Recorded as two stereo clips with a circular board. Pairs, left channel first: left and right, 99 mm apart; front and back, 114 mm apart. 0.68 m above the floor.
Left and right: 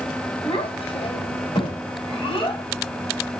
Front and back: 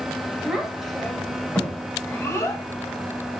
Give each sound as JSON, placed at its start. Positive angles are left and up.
{"t": 0.4, "sound": "a child speaking", "azimuth_deg": 95, "distance_m": 2.5}